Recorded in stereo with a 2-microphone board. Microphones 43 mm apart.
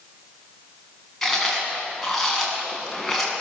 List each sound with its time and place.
1.2 s chewing: 5° left (ahead or behind), 8 m